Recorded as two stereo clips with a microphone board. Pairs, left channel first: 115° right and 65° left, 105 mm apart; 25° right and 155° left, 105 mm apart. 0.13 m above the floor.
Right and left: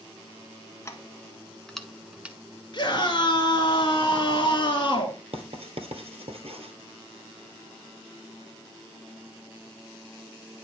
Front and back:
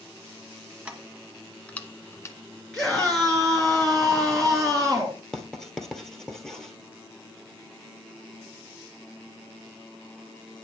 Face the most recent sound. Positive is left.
turn(degrees=60)